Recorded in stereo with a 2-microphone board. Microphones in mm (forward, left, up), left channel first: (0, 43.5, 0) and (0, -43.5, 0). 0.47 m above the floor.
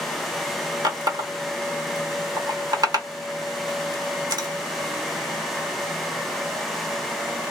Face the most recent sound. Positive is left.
turn(degrees=-45)  # may be behind; listen again after turning